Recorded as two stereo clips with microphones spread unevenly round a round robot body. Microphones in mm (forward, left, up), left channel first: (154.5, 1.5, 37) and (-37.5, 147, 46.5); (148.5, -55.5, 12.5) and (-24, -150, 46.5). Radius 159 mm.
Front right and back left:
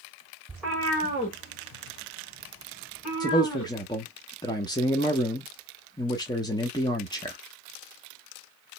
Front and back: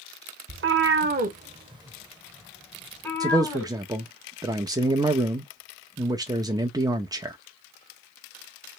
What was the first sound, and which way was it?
A cat meowing, 135° right.